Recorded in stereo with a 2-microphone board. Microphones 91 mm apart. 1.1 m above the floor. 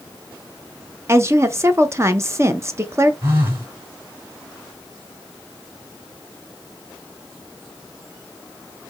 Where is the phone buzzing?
30° right (ahead or behind), 1.7 m.